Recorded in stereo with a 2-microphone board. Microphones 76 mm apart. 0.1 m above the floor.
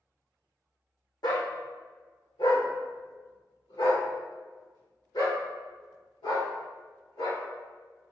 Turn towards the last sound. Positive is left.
turn(degrees=85)